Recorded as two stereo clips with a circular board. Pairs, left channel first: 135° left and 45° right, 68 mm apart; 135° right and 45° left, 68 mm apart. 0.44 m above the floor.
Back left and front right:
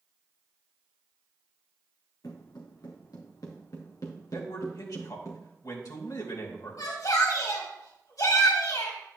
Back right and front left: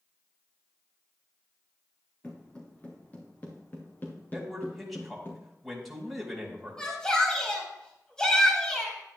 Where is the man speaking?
130° left, 3 m.